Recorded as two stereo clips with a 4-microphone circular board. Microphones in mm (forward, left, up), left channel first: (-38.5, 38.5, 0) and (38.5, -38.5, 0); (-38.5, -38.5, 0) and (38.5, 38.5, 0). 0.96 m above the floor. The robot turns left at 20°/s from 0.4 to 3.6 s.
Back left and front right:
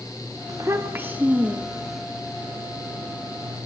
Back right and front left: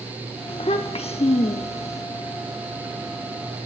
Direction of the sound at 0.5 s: 105° right.